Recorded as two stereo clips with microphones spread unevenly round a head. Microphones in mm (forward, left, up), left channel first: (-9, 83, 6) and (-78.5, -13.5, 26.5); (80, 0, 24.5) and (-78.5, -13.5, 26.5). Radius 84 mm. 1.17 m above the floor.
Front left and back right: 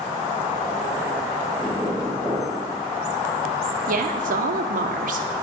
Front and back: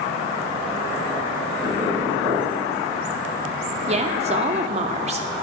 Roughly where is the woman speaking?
Behind right.